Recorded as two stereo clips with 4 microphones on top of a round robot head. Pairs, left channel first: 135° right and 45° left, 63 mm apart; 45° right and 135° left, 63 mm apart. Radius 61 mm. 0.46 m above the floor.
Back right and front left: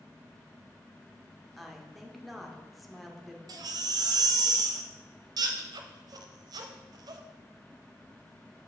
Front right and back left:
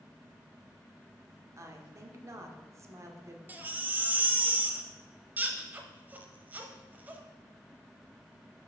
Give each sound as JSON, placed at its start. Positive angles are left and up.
{"t": 1.6, "sound": "a woman speaking", "azimuth_deg": 135, "distance_m": 1.0}
{"t": 3.5, "sound": "a baby crying", "azimuth_deg": 70, "distance_m": 0.6}